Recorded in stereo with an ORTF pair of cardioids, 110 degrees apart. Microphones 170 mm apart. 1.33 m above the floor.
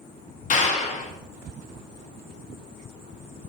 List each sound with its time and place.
0.5 s a clap: 45° left, 2.5 m